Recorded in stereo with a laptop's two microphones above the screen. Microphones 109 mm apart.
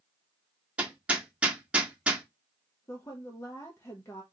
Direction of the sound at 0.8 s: 10° right (ahead or behind).